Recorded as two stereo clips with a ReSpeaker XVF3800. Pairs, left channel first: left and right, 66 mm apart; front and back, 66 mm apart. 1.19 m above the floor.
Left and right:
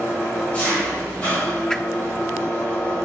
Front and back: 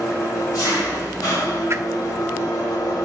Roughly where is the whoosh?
Behind.